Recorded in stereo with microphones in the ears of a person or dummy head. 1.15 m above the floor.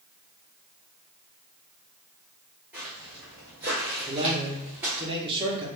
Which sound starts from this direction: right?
A man speaking, at 4.1 s.